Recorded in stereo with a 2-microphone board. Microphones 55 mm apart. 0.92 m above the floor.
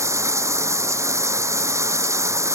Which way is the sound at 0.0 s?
60° right (ahead or behind).